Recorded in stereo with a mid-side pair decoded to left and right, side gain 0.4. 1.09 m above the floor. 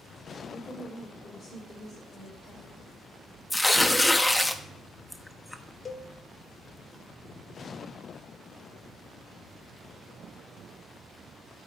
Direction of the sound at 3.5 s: 15° left.